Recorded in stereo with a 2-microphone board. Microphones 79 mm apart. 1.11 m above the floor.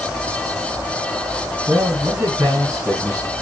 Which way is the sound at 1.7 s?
50° right (ahead or behind).